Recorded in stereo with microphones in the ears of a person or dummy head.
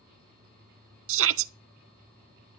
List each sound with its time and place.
1.1 s a shout: 70° right (ahead or behind), 0.5 m